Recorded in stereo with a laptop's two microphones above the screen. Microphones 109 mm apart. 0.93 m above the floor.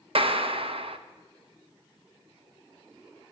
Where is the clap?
60° right (ahead or behind), 1.0 m.